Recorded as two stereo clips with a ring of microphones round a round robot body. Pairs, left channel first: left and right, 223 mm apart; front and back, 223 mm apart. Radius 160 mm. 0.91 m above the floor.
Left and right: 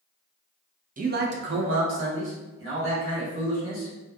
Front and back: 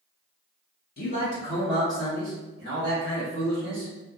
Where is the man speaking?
40° right, 0.6 m; by 3.9 s 140° right, 1.6 m.